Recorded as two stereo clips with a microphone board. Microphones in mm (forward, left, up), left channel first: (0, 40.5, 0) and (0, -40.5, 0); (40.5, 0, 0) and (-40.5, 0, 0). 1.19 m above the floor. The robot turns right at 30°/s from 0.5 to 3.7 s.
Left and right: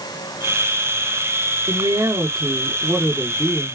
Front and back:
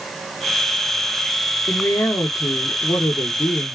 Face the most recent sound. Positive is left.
turn(degrees=5)